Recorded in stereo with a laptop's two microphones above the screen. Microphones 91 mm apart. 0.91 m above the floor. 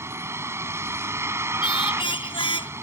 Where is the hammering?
I don't hear hammering.